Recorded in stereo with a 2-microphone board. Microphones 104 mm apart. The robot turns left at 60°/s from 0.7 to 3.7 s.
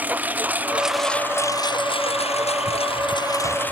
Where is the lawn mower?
165° right; by 3.7 s 15° left.